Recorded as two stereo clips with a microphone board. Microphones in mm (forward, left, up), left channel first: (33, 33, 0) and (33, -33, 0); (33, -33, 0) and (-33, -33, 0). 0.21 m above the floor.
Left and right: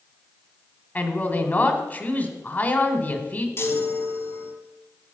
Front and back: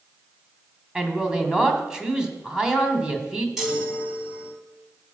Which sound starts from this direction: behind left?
A man speaking, at 0.9 s.